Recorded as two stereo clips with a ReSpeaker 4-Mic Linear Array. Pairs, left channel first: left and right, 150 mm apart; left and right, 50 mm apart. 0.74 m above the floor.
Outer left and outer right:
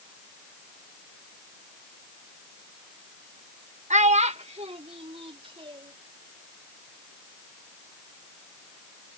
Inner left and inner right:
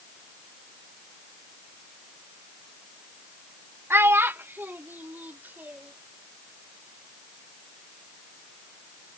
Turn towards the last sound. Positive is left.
turn(degrees=-35)  # may be behind; listen again after turning